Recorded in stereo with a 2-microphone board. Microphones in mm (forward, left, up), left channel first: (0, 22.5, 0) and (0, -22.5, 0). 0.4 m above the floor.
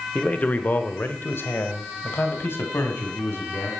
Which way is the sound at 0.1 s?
30° left (ahead or behind).